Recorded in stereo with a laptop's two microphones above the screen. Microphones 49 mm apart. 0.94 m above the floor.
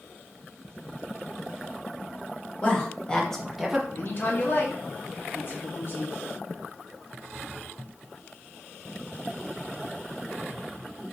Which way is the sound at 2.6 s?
25° left (ahead or behind).